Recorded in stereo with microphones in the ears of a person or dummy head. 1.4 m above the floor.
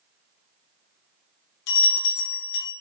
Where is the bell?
65° left (ahead or behind), 1.1 m.